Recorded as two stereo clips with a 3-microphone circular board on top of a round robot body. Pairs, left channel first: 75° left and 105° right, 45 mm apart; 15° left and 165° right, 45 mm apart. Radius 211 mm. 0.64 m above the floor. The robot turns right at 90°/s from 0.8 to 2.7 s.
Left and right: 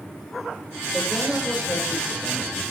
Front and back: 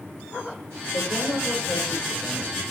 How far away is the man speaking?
About 4.5 m.